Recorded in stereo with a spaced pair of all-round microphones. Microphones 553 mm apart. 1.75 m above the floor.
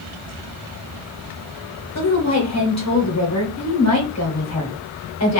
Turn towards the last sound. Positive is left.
turn(degrees=25)  # may be behind; listen again after turning